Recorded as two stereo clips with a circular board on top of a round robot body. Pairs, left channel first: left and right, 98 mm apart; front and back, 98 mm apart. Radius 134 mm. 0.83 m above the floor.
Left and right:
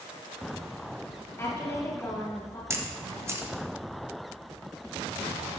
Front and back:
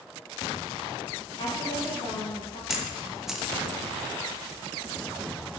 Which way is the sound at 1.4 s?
30° left.